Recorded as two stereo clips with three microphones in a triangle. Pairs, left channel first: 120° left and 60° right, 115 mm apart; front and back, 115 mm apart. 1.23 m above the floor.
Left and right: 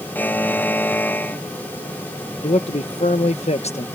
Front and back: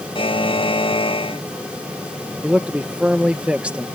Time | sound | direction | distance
0.1 | a buzzer | 45° left | ?
2.4 | a man speaking | 100° left | ?